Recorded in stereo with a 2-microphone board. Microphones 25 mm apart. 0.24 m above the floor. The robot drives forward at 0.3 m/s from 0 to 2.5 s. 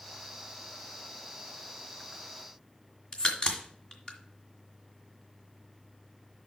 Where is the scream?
I don't hear a scream.